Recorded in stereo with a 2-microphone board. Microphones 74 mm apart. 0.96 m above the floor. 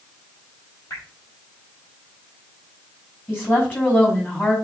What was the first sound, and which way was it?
Dripping, 45° left (ahead or behind).